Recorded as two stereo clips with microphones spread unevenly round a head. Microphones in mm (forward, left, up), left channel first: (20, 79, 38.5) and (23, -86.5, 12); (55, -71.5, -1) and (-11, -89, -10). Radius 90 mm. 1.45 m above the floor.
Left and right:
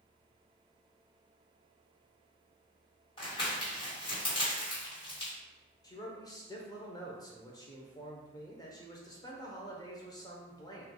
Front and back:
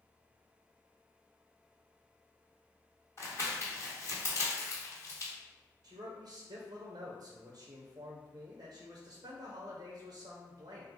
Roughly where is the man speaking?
Behind.